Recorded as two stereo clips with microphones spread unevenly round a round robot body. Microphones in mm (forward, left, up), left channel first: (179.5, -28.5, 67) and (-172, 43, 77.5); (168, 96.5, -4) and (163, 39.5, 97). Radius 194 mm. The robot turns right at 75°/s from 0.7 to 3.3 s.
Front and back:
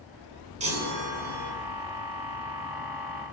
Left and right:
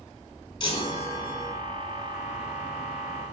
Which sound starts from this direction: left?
A chime, at 0.6 s.